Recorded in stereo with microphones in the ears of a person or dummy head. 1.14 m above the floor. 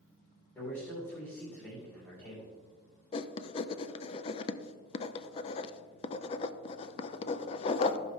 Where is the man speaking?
15° left (ahead or behind), 3 m.